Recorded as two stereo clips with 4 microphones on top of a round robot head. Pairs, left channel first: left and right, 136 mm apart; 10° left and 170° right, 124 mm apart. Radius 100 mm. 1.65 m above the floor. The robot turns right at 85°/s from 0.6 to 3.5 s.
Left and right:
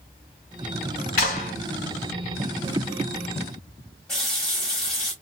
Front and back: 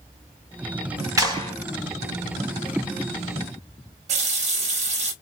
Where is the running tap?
175° left, 1.1 m.